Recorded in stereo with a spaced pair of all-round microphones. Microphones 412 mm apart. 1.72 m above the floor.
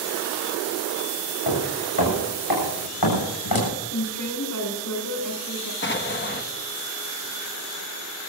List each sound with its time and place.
1.5 s footsteps: 60° left (ahead or behind), 7 m; by 3.7 s 55° left (ahead or behind), 8 m
3.9 s a woman speaking: 45° left (ahead or behind), 5.5 m
5.8 s an explosion: 25° left (ahead or behind), 1.2 m